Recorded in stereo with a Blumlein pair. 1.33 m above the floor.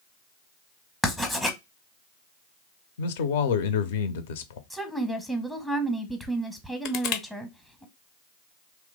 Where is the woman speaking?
5° left, 0.8 m.